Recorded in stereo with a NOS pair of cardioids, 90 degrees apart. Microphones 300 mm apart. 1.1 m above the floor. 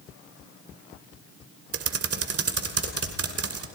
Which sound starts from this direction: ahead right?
Typing on a keyboard, at 1.7 s.